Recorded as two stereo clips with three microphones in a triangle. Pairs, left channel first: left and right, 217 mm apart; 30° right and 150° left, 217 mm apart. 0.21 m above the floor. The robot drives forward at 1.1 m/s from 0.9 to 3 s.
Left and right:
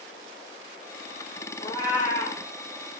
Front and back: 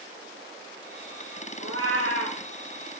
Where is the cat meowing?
155° left, 2.5 m; by 2.4 s 160° left, 3 m.